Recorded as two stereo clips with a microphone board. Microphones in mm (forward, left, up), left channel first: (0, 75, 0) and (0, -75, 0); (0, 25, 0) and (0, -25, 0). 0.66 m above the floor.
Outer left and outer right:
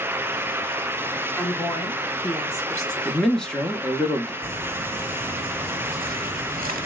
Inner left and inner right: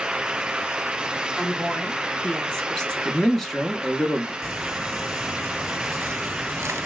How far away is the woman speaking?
About 1.2 m.